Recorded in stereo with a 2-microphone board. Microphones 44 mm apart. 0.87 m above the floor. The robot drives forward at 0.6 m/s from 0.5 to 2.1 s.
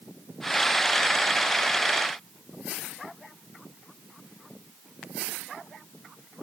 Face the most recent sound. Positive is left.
No sound to turn to.